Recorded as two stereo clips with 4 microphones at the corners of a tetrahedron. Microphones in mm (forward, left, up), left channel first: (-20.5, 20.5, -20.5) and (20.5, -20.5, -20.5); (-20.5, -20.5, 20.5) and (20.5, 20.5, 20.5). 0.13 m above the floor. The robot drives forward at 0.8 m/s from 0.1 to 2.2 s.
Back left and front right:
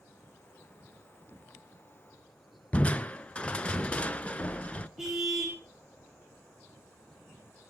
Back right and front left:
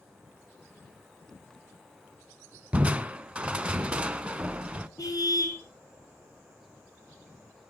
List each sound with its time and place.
2.7 s crushing: 90° left, 0.6 m
5.0 s a car horn: 130° right, 4 m